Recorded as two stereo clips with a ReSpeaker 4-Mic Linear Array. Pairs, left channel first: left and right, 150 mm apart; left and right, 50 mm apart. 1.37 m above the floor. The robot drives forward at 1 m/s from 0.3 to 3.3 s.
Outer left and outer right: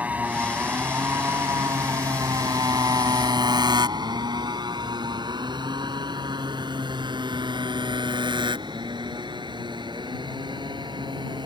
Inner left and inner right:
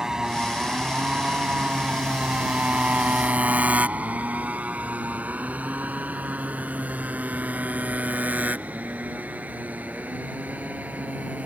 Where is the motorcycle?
10° right (ahead or behind); by 11.5 s 30° right (ahead or behind).